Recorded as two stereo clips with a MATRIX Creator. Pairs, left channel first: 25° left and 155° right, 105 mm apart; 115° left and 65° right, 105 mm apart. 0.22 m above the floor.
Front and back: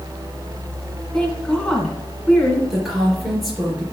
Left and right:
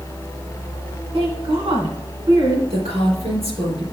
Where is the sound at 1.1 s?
60° right, 2.5 m.